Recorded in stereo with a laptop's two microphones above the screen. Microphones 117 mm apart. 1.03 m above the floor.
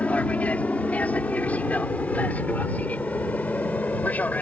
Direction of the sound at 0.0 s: 10° left (ahead or behind).